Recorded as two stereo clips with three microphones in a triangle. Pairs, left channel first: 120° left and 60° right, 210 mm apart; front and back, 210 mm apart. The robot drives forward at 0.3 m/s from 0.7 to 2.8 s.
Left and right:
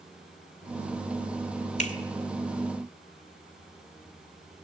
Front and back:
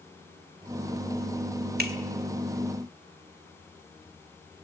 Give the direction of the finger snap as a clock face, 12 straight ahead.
7 o'clock.